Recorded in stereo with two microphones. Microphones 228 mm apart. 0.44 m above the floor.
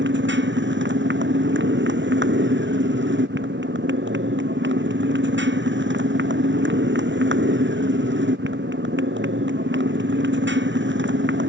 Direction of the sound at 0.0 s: 55° right (ahead or behind).